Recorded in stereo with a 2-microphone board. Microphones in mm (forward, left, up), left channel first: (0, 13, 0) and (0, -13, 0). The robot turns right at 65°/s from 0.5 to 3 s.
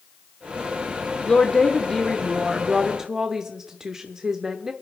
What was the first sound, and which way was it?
A woman speaking, 110° left.